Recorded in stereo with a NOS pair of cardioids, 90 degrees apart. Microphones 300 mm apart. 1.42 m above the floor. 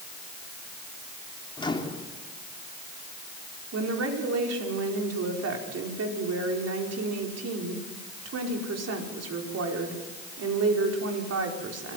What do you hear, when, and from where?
1.6 s a microwave: 15° left, 2.5 m
3.7 s a woman speaking: 55° right, 5 m